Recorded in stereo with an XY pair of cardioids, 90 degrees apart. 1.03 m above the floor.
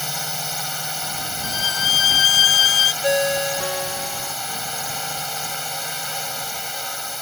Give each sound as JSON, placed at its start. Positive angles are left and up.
{"t": 0.0, "sound": "a drone", "azimuth_deg": 0}
{"t": 1.4, "sound": "a violin", "azimuth_deg": 60}
{"t": 3.0, "sound": "a ringtone", "azimuth_deg": 10}